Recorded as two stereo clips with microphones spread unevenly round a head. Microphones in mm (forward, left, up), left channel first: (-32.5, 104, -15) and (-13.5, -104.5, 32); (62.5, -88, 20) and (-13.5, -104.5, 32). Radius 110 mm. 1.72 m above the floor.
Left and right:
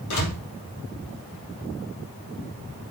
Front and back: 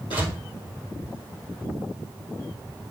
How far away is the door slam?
About 3 m.